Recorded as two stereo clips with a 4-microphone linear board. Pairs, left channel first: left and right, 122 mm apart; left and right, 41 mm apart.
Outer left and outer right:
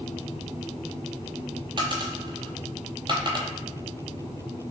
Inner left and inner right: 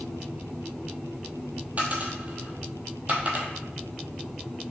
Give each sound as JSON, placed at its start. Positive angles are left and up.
{"t": 1.8, "sound": "a dropped coin", "side_deg": -40, "distance_m": 0.7}